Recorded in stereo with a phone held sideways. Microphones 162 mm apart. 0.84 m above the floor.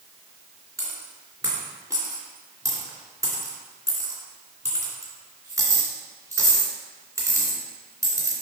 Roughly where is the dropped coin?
Centre.